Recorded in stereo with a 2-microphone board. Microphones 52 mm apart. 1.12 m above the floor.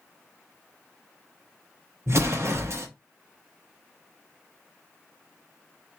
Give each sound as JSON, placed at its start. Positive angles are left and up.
{"t": 2.1, "sound": "an explosion", "side_deg": -55, "distance_m": 0.8}